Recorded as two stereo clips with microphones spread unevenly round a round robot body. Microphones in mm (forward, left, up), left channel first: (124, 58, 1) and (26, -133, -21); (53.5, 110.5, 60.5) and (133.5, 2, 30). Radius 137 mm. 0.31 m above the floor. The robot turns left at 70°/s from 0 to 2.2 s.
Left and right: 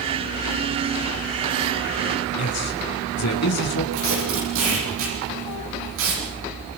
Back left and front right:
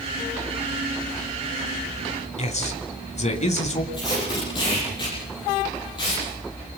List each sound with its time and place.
2.4 s a man speaking: 90° left, 3.5 m
3.9 s tape being pulled: 165° right, 9 m